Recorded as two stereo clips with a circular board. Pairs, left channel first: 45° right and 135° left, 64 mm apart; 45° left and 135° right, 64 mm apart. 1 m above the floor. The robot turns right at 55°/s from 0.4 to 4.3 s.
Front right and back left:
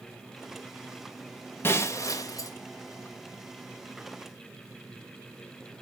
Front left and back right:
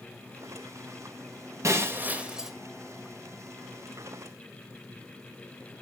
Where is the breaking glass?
95° right, 1.8 m; by 2.5 s 50° right, 1.8 m.